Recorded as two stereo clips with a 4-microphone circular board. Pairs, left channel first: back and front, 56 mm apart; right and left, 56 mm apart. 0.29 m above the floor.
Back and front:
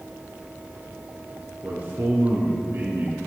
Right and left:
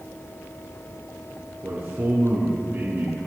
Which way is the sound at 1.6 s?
35° left.